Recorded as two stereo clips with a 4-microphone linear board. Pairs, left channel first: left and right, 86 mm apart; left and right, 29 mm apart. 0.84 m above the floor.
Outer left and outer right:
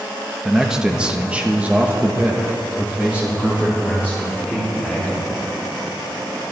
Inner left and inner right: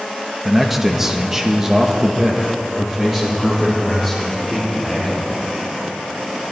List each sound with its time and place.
0.5 s a man speaking: 5° right (ahead or behind), 1.1 m; by 5.2 s 15° right (ahead or behind), 3 m